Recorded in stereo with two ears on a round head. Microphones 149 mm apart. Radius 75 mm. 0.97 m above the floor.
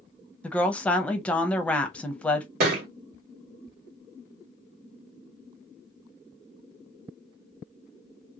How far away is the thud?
About 1.0 m.